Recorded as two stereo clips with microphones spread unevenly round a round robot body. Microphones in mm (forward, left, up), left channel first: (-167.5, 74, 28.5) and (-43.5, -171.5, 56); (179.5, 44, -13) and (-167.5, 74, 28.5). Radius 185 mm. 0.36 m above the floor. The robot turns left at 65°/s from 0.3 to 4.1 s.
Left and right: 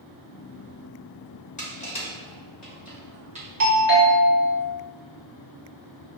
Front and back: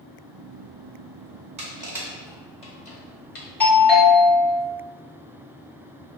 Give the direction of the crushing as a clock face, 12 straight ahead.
8 o'clock.